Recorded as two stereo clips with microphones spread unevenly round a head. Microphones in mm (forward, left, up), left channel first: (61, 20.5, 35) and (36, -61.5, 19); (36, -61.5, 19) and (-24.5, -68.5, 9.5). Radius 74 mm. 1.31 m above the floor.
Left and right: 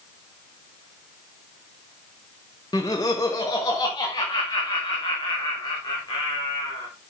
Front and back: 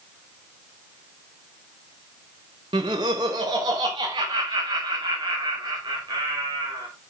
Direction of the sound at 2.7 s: 140° left.